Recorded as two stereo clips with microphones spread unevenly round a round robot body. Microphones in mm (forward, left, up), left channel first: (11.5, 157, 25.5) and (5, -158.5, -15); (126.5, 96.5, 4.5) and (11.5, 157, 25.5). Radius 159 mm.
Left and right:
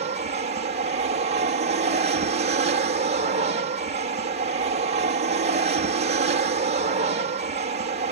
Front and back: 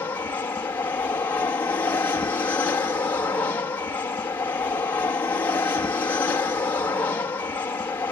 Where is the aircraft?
70° right.